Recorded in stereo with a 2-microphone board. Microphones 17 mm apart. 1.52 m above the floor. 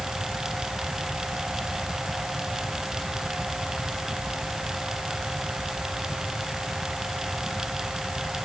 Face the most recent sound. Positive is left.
No sound to turn to.